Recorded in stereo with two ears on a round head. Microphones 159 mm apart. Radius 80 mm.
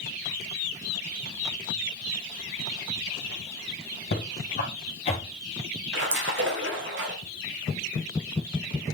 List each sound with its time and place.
4.1 s footsteps: 60° left (ahead or behind), 2.5 m; by 5.2 s 35° left (ahead or behind), 2 m
5.9 s a splash: 70° right (ahead or behind), 2.5 m